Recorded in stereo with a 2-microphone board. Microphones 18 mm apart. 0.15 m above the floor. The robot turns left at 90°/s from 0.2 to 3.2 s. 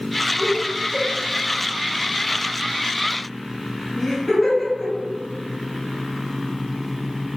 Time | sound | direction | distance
0.4 | laughter | 25° right (ahead or behind) | 1.2 m